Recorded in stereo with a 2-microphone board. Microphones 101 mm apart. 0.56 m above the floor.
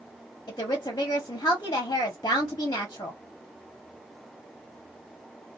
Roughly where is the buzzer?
No buzzer in this recording.